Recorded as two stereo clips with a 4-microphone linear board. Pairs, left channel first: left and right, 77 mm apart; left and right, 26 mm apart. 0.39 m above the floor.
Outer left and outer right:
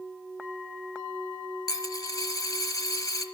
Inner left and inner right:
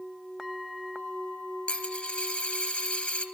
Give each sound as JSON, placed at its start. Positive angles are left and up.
{"t": 1.7, "sound": "a dropped coin", "side_deg": 55, "distance_m": 1.1}